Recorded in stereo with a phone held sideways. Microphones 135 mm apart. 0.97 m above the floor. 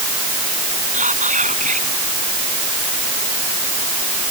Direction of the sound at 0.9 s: 70° right (ahead or behind).